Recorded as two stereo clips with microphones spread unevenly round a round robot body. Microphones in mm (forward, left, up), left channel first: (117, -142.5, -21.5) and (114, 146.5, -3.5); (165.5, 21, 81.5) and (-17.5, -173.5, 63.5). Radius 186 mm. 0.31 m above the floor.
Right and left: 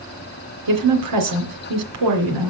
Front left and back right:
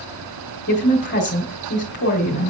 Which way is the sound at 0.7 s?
100° left.